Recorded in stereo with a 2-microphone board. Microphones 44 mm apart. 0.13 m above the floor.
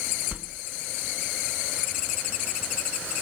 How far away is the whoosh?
About 0.6 m.